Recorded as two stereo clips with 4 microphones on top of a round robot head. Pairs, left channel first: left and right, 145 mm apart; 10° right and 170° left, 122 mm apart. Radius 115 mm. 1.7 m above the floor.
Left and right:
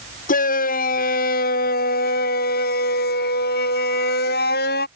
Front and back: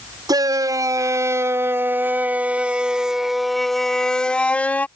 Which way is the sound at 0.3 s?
110° left.